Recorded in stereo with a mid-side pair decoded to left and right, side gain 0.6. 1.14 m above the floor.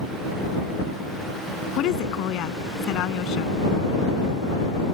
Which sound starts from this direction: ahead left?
A woman speaking, at 1.8 s.